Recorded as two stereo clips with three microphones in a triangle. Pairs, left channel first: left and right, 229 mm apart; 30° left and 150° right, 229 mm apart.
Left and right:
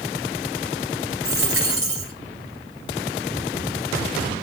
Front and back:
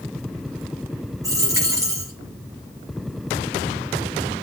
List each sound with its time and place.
1.2 s a dropped coin: 75° right, 3 m